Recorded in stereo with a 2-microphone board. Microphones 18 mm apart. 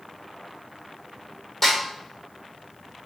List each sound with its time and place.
1.6 s a snare drum: 10° left (ahead or behind), 1.5 m